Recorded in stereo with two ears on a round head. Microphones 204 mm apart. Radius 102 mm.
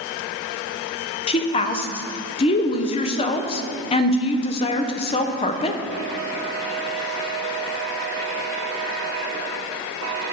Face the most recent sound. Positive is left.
turn(degrees=25)  # may be behind; listen again after turning